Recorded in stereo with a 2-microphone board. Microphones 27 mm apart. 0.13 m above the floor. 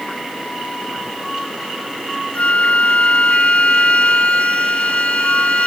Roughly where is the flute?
Left.